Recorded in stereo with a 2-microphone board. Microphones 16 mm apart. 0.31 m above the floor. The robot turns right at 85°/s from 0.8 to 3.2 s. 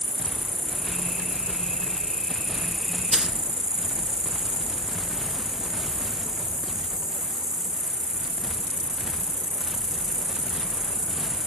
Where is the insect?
20° left, 1.1 m; by 11.5 s 135° right, 1.1 m.